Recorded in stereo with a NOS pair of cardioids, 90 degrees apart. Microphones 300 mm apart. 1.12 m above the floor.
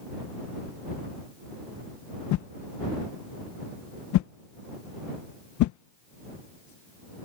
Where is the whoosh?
65° left.